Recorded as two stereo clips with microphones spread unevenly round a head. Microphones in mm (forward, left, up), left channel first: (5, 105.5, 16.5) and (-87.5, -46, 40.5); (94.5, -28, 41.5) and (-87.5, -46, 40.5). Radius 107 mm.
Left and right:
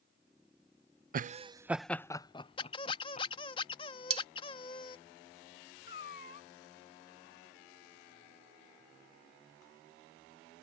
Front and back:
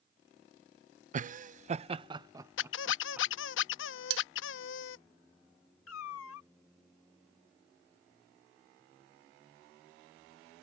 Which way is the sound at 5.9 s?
10° left.